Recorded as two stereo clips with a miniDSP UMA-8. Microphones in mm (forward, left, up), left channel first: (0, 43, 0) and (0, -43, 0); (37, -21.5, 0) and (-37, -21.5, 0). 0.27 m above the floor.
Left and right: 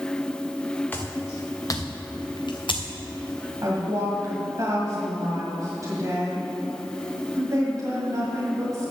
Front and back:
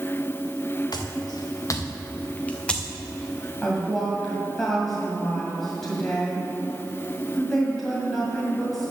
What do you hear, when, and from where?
0.9 s footsteps: 25° left, 2.0 m; by 3.5 s 100° left, 1.9 m
3.6 s a woman speaking: 85° right, 2 m